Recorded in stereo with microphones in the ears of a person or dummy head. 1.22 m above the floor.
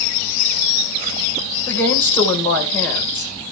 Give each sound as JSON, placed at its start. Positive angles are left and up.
{"t": 1.7, "sound": "a woman speaking", "side_deg": 5, "distance_m": 4.5}